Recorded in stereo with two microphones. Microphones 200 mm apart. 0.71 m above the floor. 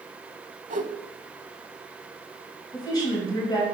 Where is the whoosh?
40° right (ahead or behind), 0.8 m.